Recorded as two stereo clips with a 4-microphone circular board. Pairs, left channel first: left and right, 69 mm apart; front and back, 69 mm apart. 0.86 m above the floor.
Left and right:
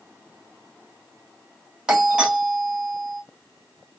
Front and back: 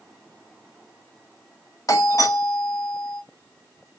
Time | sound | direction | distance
1.9 | a doorbell | 20° right | 1.3 m